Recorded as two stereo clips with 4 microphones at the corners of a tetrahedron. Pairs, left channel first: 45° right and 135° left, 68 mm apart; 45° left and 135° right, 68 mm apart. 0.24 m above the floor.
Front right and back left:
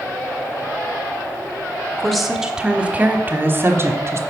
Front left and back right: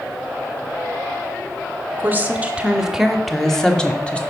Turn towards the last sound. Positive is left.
turn(degrees=115)